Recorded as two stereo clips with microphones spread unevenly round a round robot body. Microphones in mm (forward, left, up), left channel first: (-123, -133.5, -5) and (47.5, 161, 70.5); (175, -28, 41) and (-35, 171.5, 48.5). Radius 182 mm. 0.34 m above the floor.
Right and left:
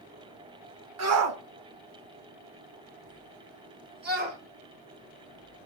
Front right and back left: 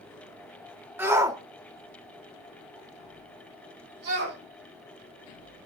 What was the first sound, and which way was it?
A shout, 60° left.